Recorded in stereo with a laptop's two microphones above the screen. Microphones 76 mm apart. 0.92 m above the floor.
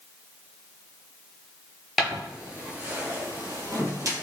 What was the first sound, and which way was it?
Footsteps, centre (ahead or behind).